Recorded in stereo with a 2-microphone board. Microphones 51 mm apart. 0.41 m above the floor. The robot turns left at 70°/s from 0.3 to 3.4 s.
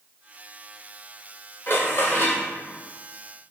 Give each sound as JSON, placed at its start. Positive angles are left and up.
{"t": 1.7, "sound": "dishes clattering", "azimuth_deg": 105, "distance_m": 1.0}